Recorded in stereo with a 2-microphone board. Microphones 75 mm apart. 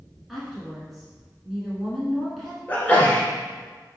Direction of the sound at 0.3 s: Centre (ahead or behind).